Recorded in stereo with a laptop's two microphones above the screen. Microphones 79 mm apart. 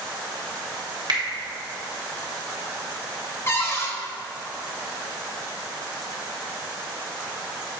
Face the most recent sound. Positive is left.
turn(degrees=30)  # may be behind; listen again after turning